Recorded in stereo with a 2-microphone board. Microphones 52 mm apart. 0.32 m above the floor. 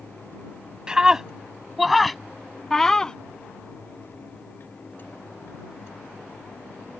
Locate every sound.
0.9 s a scream: 15° right (ahead or behind); by 3.2 s 15° left (ahead or behind)